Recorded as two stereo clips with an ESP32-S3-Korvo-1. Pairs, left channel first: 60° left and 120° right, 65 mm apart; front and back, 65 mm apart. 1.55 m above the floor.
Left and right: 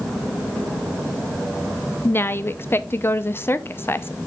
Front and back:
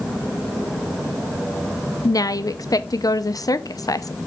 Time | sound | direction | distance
2.0 | a woman speaking | 10° left | 0.7 m